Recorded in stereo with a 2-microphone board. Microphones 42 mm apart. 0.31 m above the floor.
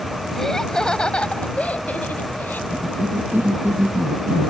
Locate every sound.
0.3 s laughter: 10° left (ahead or behind); by 2.6 s 55° left (ahead or behind)
2.7 s a cough: 70° right (ahead or behind)